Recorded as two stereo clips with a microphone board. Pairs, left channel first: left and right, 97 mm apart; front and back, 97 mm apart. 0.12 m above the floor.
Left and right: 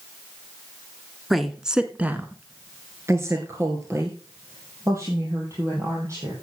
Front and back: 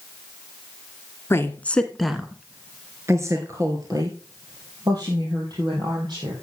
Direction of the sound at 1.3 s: Straight ahead.